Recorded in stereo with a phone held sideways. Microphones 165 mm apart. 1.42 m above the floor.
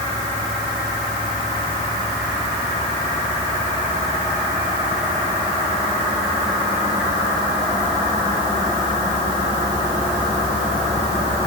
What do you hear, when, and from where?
Only background noise.